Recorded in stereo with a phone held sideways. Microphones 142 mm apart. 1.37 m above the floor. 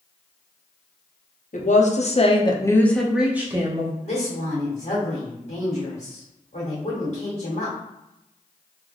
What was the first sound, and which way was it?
A woman speaking, 65° left (ahead or behind).